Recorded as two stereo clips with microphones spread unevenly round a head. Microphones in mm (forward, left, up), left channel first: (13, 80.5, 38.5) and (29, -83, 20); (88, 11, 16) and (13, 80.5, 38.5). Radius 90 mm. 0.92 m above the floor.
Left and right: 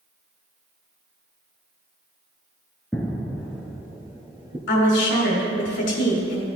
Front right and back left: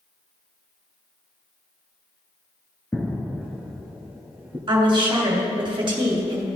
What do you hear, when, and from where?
2.9 s footsteps: 50° left, 0.9 m; by 4.6 s 155° right, 1.2 m
4.7 s a woman speaking: 100° left, 2.5 m